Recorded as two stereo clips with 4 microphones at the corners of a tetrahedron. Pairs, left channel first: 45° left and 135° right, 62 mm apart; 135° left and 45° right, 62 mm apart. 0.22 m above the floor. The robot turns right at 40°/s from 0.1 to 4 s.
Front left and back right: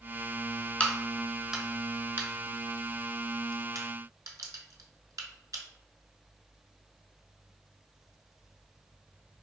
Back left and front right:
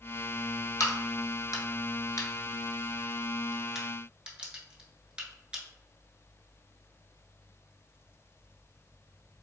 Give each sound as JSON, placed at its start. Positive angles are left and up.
{"t": 0.8, "sound": "a crack", "azimuth_deg": 115, "distance_m": 0.6}